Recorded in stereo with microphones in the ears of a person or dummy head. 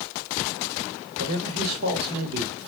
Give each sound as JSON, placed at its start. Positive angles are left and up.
{"t": 1.2, "sound": "a man speaking", "side_deg": -45, "distance_m": 1.2}